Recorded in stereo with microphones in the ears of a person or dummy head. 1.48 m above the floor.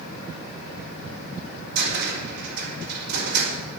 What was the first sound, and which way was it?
A cupboard door, 65° right (ahead or behind).